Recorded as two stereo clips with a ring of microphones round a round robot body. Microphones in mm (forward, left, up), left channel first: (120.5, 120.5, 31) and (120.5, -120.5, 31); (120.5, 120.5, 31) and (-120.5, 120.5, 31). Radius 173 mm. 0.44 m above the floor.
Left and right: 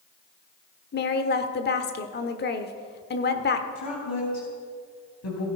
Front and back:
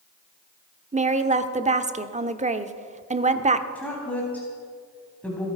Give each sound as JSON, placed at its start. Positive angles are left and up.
{"t": 0.9, "sound": "a woman speaking", "azimuth_deg": 125, "distance_m": 1.0}
{"t": 3.8, "sound": "a woman speaking", "azimuth_deg": 85, "distance_m": 4.0}